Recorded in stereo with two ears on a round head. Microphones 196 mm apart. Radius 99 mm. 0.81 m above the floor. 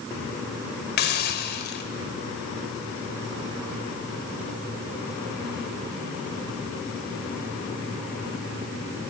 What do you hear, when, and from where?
1.0 s a hiss: 50° left (ahead or behind), 2.5 m